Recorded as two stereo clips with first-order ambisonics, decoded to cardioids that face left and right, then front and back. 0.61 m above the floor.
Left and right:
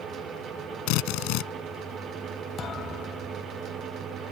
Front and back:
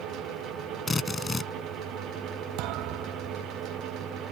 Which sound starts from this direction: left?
A drill, at 0.9 s.